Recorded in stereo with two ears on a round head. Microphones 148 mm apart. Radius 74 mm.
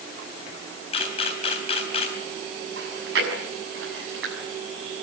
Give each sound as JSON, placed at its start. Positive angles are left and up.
{"t": 0.9, "sound": "a camera shutter", "side_deg": 40, "distance_m": 3.5}
{"t": 2.8, "sound": "chewing", "side_deg": -80, "distance_m": 6.5}